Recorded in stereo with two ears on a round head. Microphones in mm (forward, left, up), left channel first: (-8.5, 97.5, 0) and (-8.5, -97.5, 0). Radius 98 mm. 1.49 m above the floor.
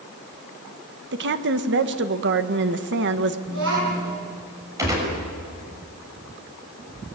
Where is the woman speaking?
55° right (ahead or behind), 1.6 m.